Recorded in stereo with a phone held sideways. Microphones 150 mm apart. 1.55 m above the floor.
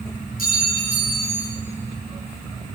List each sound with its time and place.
0.4 s a clink: 75° left (ahead or behind), 5 m